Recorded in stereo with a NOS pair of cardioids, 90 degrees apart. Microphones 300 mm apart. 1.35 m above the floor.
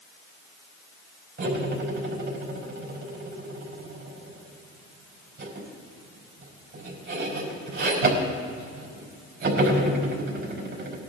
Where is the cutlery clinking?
40° right, 5 m.